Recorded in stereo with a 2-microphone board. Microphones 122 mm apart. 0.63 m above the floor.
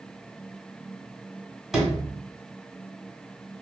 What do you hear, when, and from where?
1.7 s a sliding door: 5° right (ahead or behind), 1.4 m